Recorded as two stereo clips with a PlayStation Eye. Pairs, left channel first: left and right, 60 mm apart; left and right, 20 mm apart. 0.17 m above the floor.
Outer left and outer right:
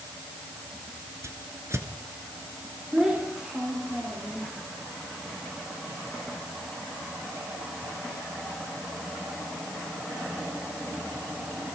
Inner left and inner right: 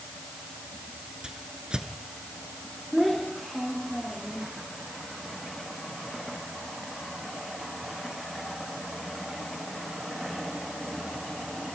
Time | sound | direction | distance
1.2 | a whoosh | 50° right (ahead or behind) | 2.5 m
2.9 | a child speaking | 10° right (ahead or behind) | 10 m